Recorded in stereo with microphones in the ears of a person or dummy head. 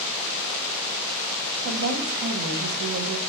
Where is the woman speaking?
80° right, 0.7 m.